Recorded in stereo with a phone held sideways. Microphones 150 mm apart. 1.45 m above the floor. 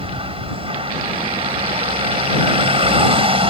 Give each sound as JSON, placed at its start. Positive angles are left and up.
{"t": 0.0, "sound": "a vehicle", "side_deg": -40}